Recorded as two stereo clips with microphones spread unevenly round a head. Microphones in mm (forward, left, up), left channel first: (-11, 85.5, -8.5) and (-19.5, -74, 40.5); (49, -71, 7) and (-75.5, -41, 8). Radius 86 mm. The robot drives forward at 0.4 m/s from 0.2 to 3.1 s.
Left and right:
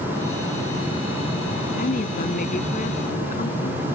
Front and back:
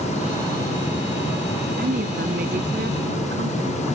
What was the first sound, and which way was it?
A woman speaking, 130° left.